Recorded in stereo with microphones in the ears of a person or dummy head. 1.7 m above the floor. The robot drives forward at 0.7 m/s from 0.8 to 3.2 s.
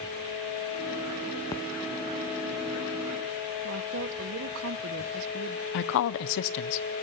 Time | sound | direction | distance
1.5 | a splash | 15° left (ahead or behind) | 1.0 m
3.6 | a woman speaking | 60° right (ahead or behind) | 1.0 m
5.7 | a woman speaking | 65° left (ahead or behind) | 0.8 m